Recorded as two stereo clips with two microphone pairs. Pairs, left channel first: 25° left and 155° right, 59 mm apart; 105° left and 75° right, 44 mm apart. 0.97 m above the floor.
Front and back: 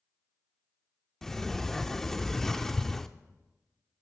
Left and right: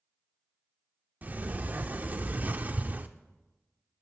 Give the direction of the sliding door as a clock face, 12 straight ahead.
2 o'clock.